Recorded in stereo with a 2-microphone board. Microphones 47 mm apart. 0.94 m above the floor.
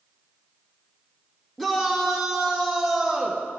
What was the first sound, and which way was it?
A shout, 5° left (ahead or behind).